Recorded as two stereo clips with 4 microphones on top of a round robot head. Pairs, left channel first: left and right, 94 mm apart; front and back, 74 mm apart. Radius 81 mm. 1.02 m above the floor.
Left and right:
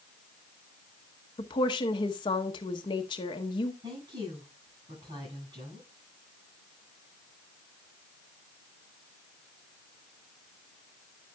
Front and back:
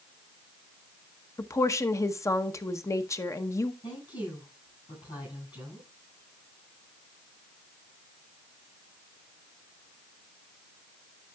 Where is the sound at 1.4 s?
45° left, 1.0 m.